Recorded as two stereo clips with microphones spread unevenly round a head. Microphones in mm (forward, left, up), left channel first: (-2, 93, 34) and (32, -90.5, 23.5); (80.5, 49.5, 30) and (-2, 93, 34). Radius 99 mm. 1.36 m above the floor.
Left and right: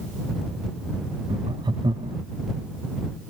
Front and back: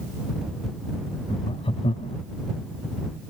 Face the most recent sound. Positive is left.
turn(degrees=-10)